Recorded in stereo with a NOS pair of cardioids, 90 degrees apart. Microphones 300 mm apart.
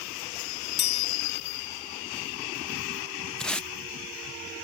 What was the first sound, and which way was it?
A chime, 55° left.